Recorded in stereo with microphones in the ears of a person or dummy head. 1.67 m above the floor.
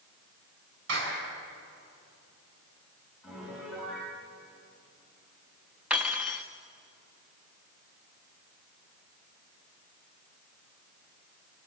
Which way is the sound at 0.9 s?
75° right (ahead or behind).